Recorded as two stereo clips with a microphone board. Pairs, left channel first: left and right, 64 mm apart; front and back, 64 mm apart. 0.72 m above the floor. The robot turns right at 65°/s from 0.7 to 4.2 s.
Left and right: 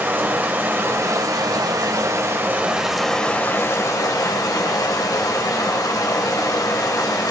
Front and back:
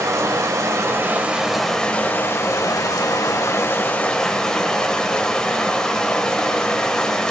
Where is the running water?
145° right, 2 m; by 7.3 s 80° left, 2 m.